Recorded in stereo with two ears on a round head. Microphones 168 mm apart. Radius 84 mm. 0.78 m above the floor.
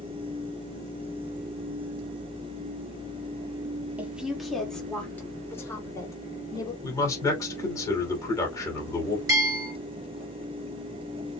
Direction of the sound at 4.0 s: 10° right (ahead or behind).